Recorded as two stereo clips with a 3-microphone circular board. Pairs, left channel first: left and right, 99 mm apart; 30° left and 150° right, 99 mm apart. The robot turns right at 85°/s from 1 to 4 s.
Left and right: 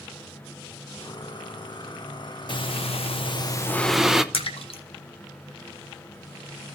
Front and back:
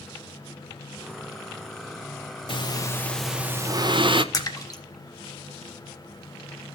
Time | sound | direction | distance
2.5 | breathing | 55° left | 0.6 m
4.3 | a splash | 80° left | 1.0 m